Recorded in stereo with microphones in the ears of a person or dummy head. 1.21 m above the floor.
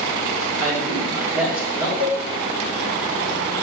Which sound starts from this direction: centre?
A man speaking, at 0.6 s.